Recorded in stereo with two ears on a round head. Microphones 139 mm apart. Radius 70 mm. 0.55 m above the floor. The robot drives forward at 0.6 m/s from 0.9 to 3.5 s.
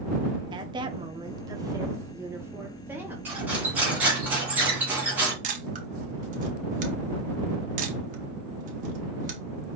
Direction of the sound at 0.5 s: 30° right (ahead or behind).